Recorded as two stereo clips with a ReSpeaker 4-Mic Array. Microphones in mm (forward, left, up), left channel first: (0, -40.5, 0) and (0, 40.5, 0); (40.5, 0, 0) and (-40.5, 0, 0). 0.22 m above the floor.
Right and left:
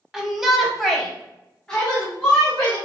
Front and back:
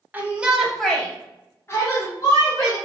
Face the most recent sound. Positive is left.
turn(degrees=-15)